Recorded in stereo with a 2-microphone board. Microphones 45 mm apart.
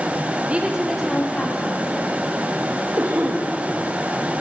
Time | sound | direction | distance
0.5 | a woman speaking | 30° right (ahead or behind) | 1.2 m
3.0 | a cough | 85° right | 1.5 m